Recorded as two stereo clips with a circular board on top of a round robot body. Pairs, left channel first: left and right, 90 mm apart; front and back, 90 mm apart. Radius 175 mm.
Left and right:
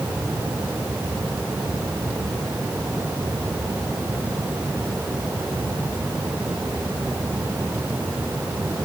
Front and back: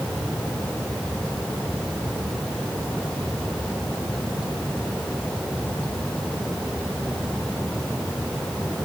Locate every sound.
Only background noise.